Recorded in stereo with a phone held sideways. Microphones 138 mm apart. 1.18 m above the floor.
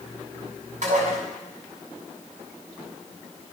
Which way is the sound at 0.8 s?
65° right (ahead or behind).